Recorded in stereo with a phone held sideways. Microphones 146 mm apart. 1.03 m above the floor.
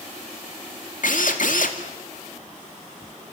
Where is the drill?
70° left (ahead or behind), 2.5 m.